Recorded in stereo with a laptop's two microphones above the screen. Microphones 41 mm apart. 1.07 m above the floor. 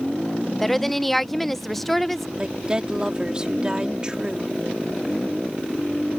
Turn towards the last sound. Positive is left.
turn(degrees=-25)  # may be behind; listen again after turning